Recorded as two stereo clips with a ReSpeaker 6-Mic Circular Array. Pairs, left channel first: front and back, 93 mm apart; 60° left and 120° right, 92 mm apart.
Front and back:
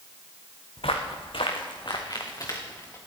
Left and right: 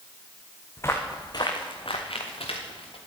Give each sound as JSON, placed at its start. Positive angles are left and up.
{"t": 0.8, "sound": "footsteps", "azimuth_deg": -5, "distance_m": 2.0}